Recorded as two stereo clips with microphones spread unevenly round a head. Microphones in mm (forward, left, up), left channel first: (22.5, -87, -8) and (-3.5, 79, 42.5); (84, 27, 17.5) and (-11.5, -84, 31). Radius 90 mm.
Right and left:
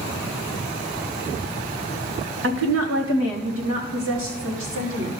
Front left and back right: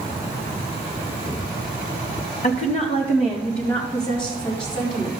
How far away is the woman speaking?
About 1.2 m.